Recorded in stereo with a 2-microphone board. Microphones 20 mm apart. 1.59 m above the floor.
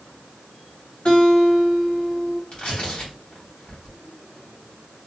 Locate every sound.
1.1 s a guitar: 55° left (ahead or behind), 1.6 m
2.5 s tearing paper: 55° left (ahead or behind), 2.0 m